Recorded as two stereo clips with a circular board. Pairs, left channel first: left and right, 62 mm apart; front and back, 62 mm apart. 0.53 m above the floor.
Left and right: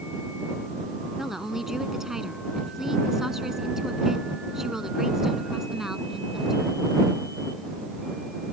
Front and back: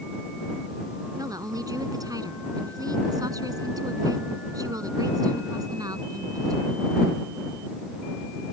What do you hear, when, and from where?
1.2 s a woman speaking: 170° right